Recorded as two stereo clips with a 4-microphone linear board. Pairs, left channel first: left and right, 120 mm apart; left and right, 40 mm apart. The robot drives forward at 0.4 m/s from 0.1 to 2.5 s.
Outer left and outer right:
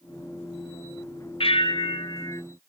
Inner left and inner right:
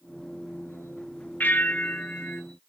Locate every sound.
1.4 s a bell: 55° left (ahead or behind), 0.6 m; by 2.4 s 35° left (ahead or behind), 0.7 m